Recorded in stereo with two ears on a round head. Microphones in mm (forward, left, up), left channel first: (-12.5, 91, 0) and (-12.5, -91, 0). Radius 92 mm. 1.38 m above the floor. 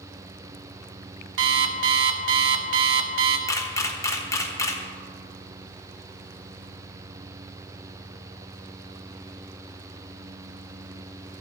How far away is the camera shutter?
About 1.1 m.